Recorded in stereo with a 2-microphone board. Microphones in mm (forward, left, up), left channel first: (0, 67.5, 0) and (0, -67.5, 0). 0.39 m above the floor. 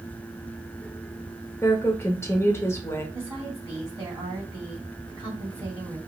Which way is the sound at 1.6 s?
20° left (ahead or behind).